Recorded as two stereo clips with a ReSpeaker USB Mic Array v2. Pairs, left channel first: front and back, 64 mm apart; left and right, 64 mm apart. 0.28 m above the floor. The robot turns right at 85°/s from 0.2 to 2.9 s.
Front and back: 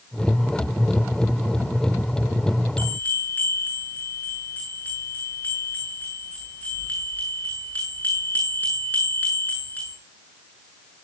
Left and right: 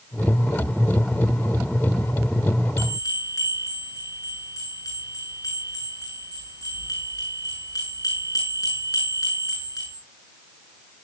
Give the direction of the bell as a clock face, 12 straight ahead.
10 o'clock.